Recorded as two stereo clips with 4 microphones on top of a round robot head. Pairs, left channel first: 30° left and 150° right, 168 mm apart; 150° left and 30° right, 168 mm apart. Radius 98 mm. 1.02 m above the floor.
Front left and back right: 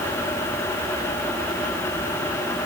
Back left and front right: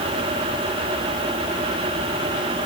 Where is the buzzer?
I don't hear a buzzer.